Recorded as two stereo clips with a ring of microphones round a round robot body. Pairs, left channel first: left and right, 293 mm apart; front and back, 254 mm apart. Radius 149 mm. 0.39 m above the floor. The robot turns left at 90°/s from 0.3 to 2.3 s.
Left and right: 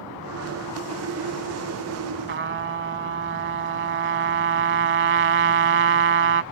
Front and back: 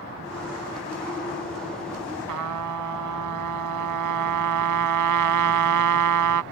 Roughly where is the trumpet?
Behind right.